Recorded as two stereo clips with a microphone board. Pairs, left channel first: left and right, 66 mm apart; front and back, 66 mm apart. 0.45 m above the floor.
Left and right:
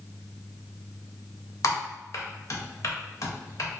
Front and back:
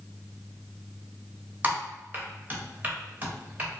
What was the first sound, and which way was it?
Typing on a keyboard, 120° left.